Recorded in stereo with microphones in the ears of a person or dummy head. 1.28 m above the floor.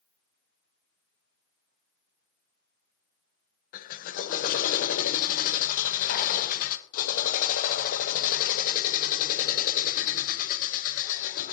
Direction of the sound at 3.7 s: 40° left (ahead or behind).